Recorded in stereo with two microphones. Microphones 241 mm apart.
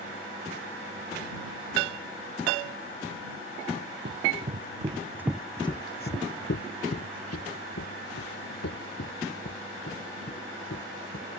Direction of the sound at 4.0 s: 45° right (ahead or behind).